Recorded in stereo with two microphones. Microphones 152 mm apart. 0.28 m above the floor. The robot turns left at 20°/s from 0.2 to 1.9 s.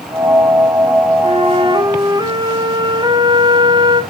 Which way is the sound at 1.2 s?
45° right (ahead or behind).